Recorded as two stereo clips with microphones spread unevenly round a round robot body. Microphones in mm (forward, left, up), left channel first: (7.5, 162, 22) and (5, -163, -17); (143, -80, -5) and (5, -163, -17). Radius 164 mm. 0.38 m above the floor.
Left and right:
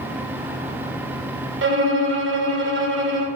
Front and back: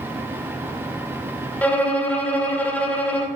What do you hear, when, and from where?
1.6 s a violin: 50° right, 2 m